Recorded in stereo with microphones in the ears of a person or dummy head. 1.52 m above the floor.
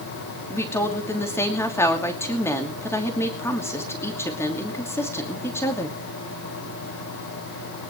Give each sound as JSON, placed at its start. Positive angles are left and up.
{"t": 0.5, "sound": "a woman speaking", "side_deg": 15, "distance_m": 2.5}